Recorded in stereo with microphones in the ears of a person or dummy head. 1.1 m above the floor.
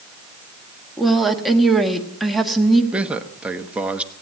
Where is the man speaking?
5° right (ahead or behind), 1.0 m.